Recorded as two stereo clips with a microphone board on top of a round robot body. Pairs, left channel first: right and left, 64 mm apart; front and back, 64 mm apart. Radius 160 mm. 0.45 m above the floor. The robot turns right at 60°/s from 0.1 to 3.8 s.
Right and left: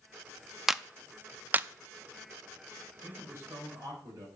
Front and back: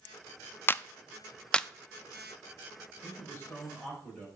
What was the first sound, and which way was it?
A clap, 10° left.